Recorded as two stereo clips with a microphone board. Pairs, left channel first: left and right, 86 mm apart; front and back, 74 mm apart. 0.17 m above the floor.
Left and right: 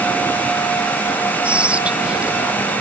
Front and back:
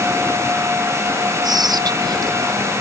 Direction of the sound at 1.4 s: 165° right.